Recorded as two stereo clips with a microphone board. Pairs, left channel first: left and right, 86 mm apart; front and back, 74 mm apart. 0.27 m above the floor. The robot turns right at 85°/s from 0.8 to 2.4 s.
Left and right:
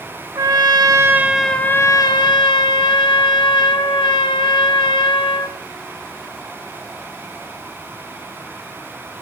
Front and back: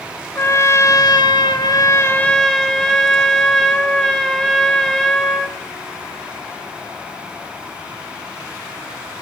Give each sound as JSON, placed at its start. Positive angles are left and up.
{"t": 0.3, "sound": "a trumpet", "azimuth_deg": -50, "distance_m": 0.5}